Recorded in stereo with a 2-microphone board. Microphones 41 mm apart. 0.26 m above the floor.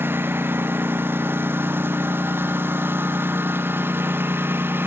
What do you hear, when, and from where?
0.0 s a lawn mower: 65° right (ahead or behind)